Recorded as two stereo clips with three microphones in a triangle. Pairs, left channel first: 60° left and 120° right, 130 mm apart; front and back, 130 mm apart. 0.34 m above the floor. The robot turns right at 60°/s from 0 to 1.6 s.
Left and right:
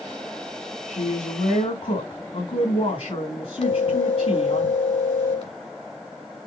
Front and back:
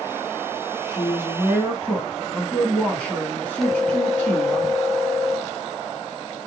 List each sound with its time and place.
0.9 s a woman speaking: 45° left, 2.5 m; by 4.6 s 90° left, 2.5 m
3.6 s a phone ringing: 90° left, 2.0 m